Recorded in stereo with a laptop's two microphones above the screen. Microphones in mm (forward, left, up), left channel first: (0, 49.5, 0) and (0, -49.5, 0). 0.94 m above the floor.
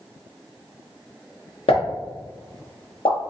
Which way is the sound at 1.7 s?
75° left (ahead or behind).